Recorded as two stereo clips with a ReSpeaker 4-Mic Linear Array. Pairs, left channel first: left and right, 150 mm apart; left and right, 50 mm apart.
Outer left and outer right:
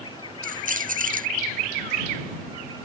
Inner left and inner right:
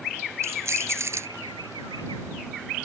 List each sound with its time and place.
0.4 s keys jangling: 60° right (ahead or behind)